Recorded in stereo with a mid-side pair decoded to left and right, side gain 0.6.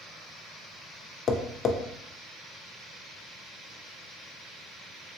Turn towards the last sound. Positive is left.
turn(degrees=40)